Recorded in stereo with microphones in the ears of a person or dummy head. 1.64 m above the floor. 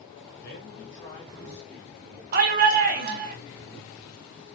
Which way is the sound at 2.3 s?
50° right (ahead or behind).